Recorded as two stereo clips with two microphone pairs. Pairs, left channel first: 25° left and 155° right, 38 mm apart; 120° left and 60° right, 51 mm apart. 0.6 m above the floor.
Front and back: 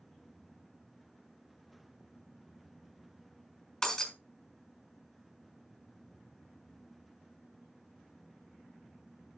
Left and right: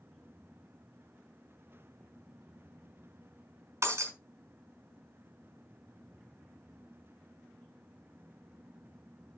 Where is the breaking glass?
45° right, 2.5 m.